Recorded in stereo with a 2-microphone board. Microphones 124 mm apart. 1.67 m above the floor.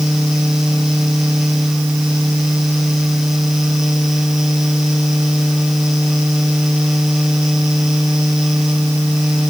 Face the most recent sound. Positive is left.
No sound to turn to.